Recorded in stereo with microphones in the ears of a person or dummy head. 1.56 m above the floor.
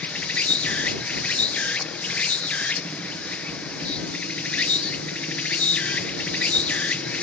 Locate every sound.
0.0 s an insect: 5° left (ahead or behind)